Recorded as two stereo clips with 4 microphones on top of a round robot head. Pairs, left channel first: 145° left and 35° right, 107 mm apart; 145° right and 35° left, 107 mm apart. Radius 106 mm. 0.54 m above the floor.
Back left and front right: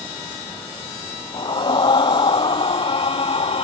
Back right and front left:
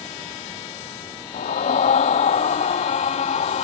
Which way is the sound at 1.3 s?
165° right.